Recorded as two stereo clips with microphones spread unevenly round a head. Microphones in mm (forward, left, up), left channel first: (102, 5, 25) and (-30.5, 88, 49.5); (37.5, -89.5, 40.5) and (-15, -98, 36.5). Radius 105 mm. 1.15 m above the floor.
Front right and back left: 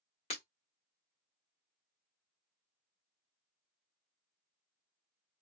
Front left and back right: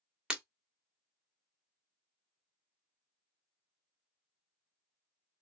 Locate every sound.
0.3 s breaking glass: 95° right, 1.5 m